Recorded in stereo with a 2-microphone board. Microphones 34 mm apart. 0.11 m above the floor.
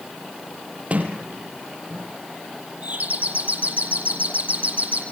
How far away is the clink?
No clink in this recording.